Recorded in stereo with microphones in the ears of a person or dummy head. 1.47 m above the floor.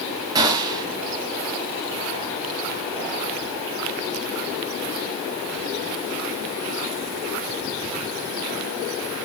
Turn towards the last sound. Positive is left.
turn(degrees=-15)  # may be behind; listen again after turning